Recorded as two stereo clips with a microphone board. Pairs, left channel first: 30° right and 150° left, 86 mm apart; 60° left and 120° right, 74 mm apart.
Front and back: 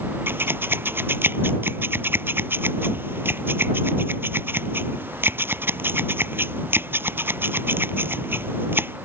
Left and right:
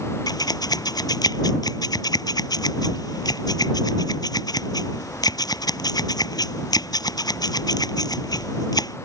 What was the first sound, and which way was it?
Scissors, 85° left.